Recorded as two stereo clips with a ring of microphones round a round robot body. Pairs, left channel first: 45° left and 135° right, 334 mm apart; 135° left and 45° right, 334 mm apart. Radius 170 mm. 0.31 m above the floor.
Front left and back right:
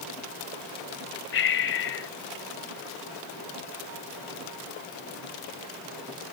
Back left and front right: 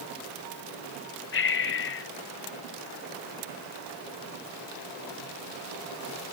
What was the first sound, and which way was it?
Breathing, 90° left.